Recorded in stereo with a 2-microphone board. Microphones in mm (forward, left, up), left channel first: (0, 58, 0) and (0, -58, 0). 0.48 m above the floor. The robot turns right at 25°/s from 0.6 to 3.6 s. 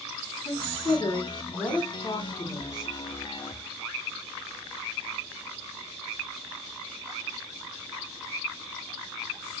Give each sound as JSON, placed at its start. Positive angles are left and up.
{"t": 0.5, "sound": "a woman speaking", "azimuth_deg": 135, "distance_m": 3.0}